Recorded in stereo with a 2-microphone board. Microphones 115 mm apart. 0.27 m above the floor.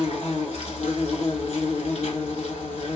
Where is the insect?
80° left, 0.9 m.